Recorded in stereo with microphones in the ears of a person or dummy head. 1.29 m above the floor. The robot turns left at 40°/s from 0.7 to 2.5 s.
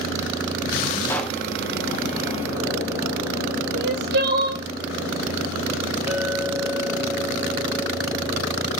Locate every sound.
1.1 s a pop: 15° left (ahead or behind), 0.7 m; by 1.4 s centre (ahead or behind), 0.7 m
3.7 s crying: 60° right (ahead or behind), 1.2 m
6.1 s a clink: 10° right (ahead or behind), 1.1 m